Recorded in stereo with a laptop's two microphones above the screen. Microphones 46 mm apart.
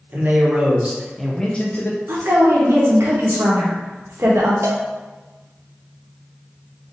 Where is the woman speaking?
70° right (ahead or behind), 1.2 m.